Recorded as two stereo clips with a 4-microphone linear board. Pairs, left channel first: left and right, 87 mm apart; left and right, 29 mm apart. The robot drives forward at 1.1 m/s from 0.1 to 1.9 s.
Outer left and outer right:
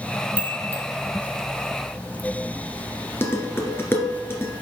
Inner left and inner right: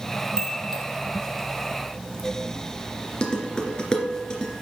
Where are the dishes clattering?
30° left (ahead or behind), 2 m.